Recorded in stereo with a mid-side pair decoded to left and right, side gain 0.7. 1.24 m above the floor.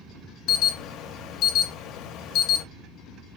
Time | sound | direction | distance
0.5 | an alarm | 55° left | 0.9 m